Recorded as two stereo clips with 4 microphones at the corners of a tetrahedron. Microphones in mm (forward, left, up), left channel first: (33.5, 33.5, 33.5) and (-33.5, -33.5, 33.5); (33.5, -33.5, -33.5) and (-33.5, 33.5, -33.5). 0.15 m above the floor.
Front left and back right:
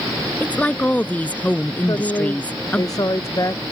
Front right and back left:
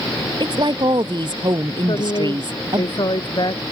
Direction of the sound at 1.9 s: 5° right.